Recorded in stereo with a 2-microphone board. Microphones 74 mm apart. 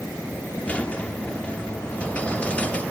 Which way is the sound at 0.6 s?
20° left (ahead or behind).